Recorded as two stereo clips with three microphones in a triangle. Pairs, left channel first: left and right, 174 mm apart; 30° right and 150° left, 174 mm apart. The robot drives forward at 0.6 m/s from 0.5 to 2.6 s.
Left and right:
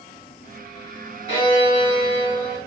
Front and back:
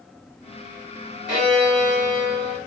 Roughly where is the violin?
Behind right.